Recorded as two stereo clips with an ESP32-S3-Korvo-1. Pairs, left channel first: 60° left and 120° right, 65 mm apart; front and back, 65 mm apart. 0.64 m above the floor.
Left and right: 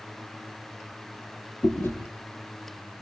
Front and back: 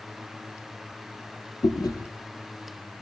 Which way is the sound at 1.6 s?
5° left.